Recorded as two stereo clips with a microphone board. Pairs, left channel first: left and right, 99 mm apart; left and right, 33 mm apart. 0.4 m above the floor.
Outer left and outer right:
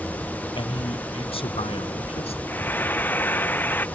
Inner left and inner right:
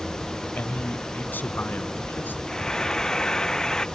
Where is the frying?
20° left (ahead or behind).